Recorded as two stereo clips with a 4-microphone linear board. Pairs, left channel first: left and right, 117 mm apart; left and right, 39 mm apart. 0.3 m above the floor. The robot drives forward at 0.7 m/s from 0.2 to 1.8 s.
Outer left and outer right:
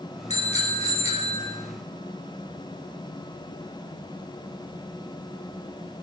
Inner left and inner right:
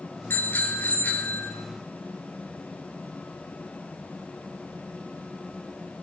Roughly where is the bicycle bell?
Left.